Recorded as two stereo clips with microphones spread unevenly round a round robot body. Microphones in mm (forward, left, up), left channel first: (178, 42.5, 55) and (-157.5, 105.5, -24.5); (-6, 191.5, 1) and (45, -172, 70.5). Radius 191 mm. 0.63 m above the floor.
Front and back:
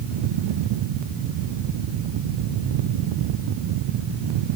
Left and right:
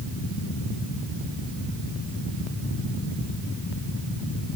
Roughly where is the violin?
No violin in this recording.